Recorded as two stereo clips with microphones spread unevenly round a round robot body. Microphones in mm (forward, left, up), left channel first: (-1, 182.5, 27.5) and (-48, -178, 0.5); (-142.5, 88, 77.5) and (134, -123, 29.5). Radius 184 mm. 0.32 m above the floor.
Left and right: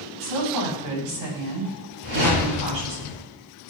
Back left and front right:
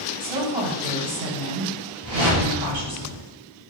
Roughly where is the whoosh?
Right.